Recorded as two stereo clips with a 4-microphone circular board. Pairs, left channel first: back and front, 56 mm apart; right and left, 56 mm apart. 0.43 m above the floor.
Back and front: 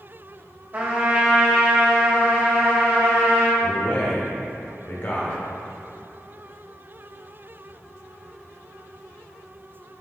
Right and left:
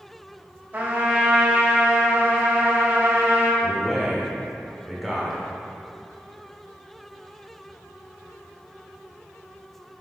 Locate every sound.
0.7 s a trumpet: 45° left, 2.5 m
3.6 s a man speaking: straight behind, 1.1 m